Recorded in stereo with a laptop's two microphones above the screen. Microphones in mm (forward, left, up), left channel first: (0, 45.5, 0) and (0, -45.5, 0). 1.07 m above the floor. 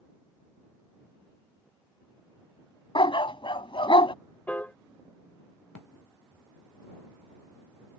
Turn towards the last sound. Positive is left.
turn(degrees=15)  # may be behind; listen again after turning